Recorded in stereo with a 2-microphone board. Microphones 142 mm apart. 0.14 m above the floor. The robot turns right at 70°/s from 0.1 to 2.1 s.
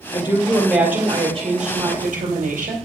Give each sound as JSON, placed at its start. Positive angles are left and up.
{"t": 0.1, "sound": "a woman speaking", "azimuth_deg": 135, "distance_m": 3.0}